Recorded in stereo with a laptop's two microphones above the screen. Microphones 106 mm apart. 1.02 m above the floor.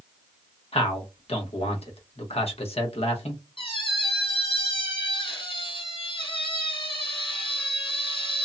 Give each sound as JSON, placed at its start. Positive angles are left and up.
{"t": 0.7, "sound": "a man speaking", "side_deg": 65, "distance_m": 0.9}
{"t": 3.6, "sound": "a squeak", "side_deg": 55, "distance_m": 1.9}